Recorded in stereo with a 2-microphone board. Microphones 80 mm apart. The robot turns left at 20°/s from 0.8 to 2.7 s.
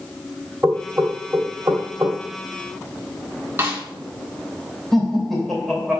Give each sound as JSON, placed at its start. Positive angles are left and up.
{"t": 0.6, "sound": "knocking", "side_deg": -35, "distance_m": 1.7}
{"t": 3.6, "sound": "a snare drum", "side_deg": -30, "distance_m": 1.5}
{"t": 4.9, "sound": "laughter", "side_deg": 0, "distance_m": 3.0}